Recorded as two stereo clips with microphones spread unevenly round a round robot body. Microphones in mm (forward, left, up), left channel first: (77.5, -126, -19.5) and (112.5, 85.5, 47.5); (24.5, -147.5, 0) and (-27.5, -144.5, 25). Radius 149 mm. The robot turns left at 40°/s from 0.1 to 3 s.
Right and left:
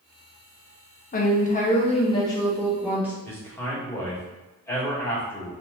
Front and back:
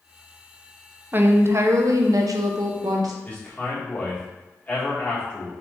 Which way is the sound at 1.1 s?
110° right.